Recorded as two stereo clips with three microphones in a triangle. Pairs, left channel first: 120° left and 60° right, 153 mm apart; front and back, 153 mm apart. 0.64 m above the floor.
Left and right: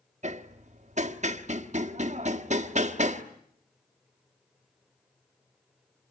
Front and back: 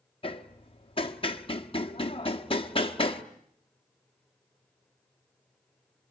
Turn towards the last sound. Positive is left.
turn(degrees=-45)